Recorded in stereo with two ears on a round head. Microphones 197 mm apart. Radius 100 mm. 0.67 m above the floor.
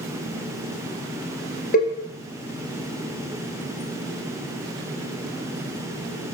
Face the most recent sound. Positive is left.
turn(degrees=40)  # may be behind; listen again after turning